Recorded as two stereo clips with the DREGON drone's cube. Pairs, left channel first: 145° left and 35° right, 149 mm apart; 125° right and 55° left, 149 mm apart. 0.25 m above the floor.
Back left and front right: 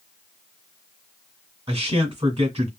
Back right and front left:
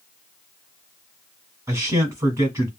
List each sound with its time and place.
1.7 s a man speaking: 5° right, 1.6 m